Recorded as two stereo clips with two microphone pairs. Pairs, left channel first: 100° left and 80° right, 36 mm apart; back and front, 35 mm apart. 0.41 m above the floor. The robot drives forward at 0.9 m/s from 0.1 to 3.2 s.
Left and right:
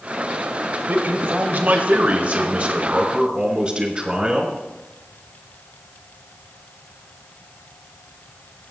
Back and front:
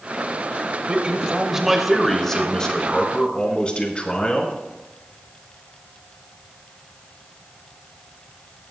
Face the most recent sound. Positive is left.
turn(degrees=-140)